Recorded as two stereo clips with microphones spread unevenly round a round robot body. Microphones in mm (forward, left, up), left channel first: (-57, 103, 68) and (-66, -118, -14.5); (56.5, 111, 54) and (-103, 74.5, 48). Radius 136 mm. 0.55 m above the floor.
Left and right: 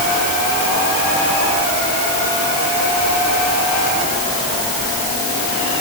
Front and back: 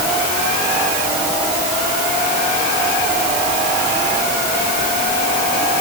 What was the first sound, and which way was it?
Only background noise.